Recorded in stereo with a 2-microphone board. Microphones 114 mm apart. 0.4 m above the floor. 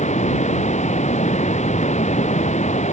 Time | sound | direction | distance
0.0 | running water | 85° left | ?